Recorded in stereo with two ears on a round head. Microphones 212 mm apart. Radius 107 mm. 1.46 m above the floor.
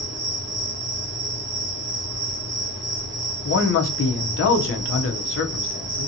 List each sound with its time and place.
0.0 s an insect: 50° right (ahead or behind), 1.9 m
3.5 s a man speaking: 55° left (ahead or behind), 0.7 m